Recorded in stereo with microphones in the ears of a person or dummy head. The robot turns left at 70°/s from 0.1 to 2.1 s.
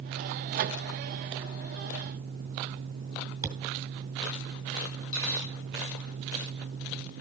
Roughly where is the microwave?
Right.